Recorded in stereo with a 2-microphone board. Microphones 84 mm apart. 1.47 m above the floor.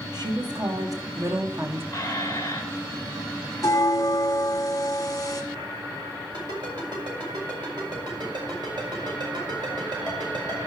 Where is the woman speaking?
50° right (ahead or behind), 1.6 m; by 1.8 s 25° right (ahead or behind), 1.0 m.